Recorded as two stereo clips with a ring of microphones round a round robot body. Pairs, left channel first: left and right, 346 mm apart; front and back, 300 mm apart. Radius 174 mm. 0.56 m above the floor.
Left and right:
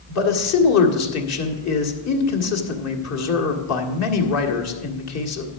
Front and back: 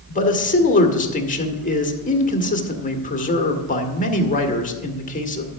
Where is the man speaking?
60° left, 1.7 m.